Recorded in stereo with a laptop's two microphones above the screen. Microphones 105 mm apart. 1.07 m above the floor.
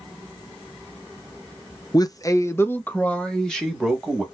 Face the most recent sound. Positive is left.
turn(degrees=0)  # may be behind; listen again after turning